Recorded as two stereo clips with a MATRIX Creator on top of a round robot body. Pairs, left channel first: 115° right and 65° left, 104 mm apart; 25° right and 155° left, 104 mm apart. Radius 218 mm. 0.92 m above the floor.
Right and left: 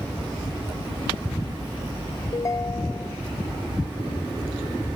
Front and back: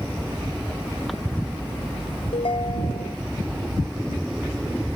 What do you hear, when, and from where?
2.3 s a ringtone: 55° right